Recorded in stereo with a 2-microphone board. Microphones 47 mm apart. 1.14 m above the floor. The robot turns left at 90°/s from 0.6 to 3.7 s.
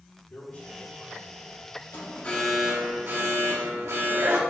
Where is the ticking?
I don't hear ticking.